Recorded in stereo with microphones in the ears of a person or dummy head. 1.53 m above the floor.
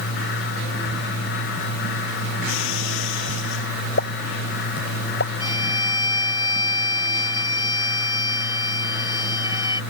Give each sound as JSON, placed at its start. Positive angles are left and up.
{"t": 2.5, "sound": "breaking glass", "side_deg": 75}
{"t": 4.0, "sound": "a pop", "side_deg": 65}
{"t": 5.4, "sound": "a violin", "side_deg": 25}